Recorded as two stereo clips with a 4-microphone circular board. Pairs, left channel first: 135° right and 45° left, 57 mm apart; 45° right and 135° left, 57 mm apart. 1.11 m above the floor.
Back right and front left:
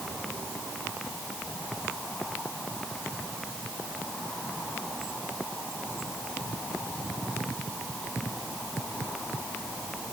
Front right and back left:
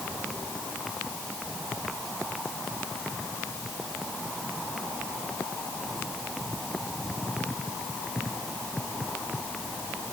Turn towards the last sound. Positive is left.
No sound to turn to.